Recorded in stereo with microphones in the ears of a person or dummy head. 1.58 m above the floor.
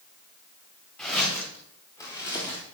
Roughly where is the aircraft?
I don't hear an aircraft.